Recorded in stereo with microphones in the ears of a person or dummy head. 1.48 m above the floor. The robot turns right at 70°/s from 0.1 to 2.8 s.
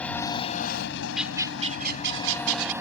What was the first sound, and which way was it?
An engine running, 5° left.